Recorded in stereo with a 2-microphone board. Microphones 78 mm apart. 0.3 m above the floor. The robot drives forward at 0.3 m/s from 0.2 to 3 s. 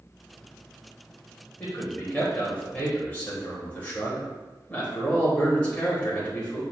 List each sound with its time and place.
1.6 s a man speaking: 20° left (ahead or behind), 0.9 m